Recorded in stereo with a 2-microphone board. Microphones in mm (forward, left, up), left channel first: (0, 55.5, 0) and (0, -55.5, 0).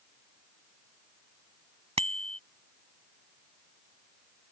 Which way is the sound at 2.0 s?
70° right (ahead or behind).